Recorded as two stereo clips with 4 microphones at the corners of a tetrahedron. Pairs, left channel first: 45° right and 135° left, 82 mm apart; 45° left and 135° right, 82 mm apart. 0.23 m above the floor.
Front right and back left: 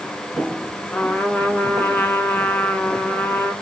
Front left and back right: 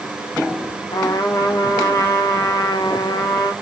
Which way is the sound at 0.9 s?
25° left.